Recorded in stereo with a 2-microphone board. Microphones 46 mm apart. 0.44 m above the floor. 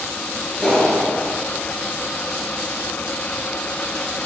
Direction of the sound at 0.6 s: 10° left (ahead or behind).